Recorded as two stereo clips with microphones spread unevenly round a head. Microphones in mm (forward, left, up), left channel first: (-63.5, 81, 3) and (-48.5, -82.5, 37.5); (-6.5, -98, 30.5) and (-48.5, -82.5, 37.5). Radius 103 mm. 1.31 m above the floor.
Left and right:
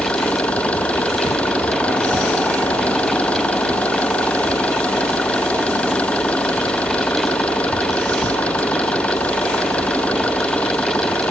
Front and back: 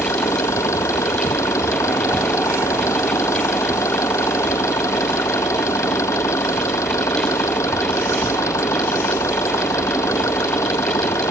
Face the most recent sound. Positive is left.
turn(degrees=10)